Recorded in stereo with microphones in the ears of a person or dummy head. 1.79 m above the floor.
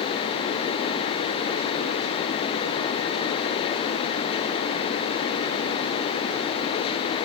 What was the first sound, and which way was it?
Only background noise.